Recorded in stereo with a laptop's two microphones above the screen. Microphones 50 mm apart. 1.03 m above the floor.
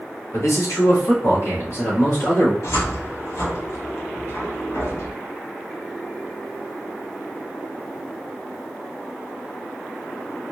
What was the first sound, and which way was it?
A man speaking, 75° left (ahead or behind).